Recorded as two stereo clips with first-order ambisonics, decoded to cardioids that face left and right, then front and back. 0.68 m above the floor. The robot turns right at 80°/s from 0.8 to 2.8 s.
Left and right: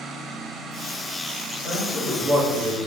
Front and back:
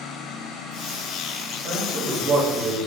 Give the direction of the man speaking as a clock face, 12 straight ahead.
7 o'clock.